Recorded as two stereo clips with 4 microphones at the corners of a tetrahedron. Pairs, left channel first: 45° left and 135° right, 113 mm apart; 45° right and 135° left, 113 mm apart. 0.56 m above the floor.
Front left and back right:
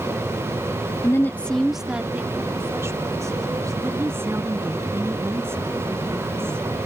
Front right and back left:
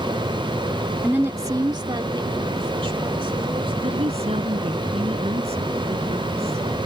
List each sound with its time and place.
1.0 s a woman speaking: 70° left; by 3.7 s 170° left
3.8 s a woman speaking: 155° left